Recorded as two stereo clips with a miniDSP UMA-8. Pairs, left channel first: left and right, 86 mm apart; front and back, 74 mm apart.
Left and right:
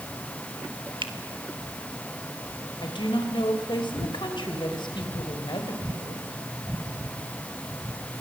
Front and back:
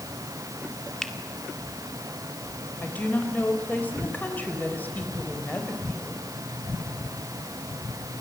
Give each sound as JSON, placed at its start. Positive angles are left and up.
{"t": 1.0, "sound": "a finger snap", "azimuth_deg": -80, "distance_m": 2.0}
{"t": 2.8, "sound": "a woman speaking", "azimuth_deg": 65, "distance_m": 3.5}